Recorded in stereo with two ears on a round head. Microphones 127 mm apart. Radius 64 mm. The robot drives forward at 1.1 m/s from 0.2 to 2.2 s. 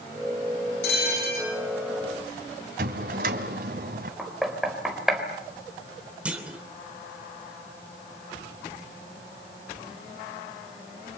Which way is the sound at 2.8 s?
65° right (ahead or behind).